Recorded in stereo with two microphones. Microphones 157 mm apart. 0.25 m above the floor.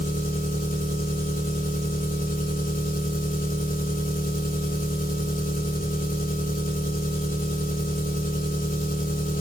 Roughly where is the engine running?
Left.